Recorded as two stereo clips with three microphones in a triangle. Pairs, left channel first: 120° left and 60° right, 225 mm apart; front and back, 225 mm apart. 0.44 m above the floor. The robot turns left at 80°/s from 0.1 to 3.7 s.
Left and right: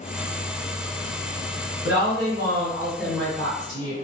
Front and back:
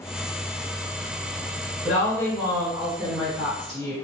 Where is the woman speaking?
50° right, 1.9 m; by 3.9 s 160° left, 1.9 m.